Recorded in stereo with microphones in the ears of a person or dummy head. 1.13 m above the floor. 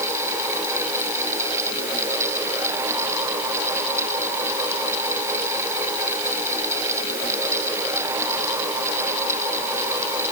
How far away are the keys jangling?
I don't hear keys jangling.